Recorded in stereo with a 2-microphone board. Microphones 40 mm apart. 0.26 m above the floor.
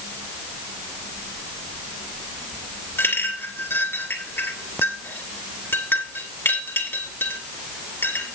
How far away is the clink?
About 2.5 m.